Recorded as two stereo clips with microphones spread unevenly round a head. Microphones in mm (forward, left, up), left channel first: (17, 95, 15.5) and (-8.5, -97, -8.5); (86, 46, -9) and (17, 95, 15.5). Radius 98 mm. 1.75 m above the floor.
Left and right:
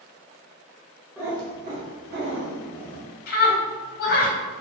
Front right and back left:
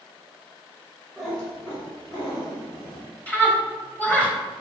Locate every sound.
1.2 s a cat meowing: straight behind, 1.0 m; by 3.1 s 90° right, 2.0 m
3.3 s a scream: 40° left, 1.4 m